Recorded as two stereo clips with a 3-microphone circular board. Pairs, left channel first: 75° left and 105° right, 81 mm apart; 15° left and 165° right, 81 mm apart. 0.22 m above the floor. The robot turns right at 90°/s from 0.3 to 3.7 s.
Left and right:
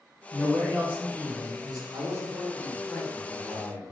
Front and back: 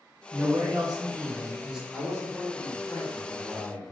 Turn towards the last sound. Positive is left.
turn(degrees=75)